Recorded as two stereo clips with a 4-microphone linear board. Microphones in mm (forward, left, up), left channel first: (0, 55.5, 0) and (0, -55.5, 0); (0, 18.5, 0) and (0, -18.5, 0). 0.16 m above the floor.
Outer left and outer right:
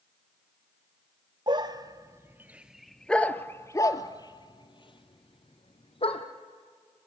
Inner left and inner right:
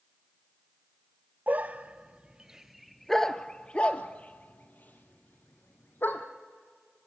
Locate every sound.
1.5 s a dog barking: 45° right (ahead or behind), 1.1 m; by 6.2 s 60° left (ahead or behind), 2 m